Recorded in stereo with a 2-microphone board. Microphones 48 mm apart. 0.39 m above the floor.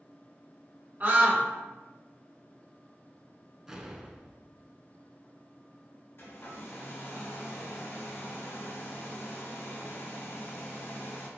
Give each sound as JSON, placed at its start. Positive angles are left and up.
{"t": 1.0, "sound": "a scream", "side_deg": -40, "distance_m": 1.2}
{"t": 3.7, "sound": "an explosion", "side_deg": -15, "distance_m": 0.6}
{"t": 6.2, "sound": "a hair dryer", "side_deg": 50, "distance_m": 1.8}